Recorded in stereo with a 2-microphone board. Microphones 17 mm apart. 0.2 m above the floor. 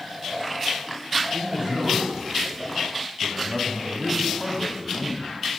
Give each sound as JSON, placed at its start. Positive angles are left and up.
{"t": 1.3, "sound": "a man speaking", "side_deg": -50, "distance_m": 2.0}